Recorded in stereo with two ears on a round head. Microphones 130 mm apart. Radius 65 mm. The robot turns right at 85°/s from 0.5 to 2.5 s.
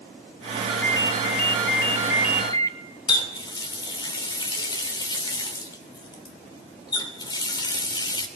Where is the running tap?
30° left (ahead or behind), 3 m.